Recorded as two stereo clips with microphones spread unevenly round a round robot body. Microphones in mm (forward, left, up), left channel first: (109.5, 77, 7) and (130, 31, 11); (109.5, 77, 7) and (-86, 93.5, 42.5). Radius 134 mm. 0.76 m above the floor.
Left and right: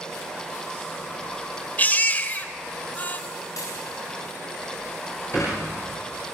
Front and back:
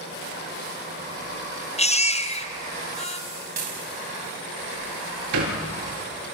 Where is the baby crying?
55° left, 2 m.